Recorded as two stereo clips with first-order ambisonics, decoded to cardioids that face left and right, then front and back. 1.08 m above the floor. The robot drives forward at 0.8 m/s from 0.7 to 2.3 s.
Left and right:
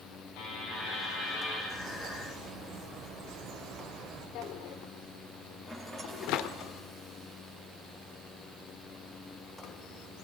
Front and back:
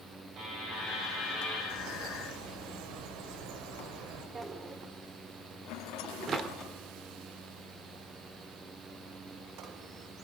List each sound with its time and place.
0.4 s a buzzer: 125° left, 8.5 m; by 1.6 s 130° left, 9 m
1.7 s a bird: 155° right, 4 m; by 4.2 s 160° right, 4.5 m
4.3 s a drawer: 110° left, 1.2 m
5.7 s a rattle: 5° left, 2.5 m